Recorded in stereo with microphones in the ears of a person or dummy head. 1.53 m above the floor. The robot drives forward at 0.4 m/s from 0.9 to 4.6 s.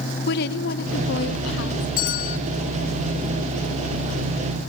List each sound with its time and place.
0.3 s a woman speaking: 55° left (ahead or behind), 1.2 m; by 1.9 s 70° left (ahead or behind), 1.1 m
2.0 s a bell: 45° left (ahead or behind), 1.3 m; by 2.4 s 50° left (ahead or behind), 1.2 m